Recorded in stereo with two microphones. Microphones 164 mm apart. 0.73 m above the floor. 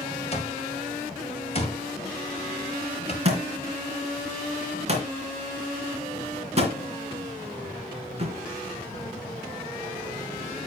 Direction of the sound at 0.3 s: 40° left (ahead or behind).